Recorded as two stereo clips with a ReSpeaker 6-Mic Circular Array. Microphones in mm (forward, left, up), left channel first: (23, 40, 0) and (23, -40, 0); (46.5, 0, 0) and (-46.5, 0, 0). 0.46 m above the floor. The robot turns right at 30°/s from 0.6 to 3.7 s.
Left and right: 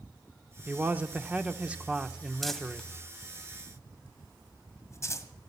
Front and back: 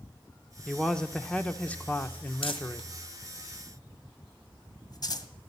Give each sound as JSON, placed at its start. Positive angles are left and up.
{"t": 0.7, "sound": "a man speaking", "azimuth_deg": -75, "distance_m": 0.9}
{"t": 2.4, "sound": "crumpling", "azimuth_deg": 0, "distance_m": 1.7}